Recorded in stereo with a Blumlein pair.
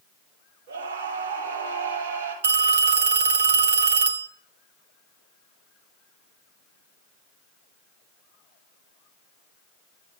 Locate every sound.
0.7 s a scream: 50° right, 5.5 m
2.4 s a phone ringing: 60° right, 0.9 m